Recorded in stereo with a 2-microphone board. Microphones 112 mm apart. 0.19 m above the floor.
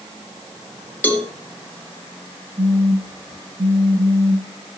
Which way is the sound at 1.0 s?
15° left (ahead or behind).